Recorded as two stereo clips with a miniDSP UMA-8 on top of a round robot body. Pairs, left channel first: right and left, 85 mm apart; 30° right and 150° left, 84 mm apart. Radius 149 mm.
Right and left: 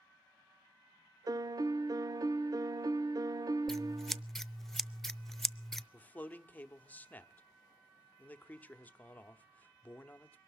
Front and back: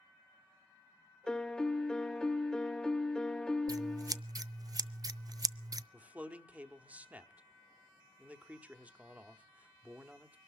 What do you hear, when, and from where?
1.3 s a piano: 50° left, 0.6 m
3.7 s scissors: 175° right, 0.5 m
5.9 s a man speaking: 150° right, 1.2 m